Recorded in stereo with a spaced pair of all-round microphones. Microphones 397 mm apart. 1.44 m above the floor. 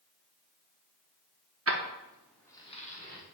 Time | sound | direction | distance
1.7 | keys jangling | 40° right (ahead or behind) | 0.5 m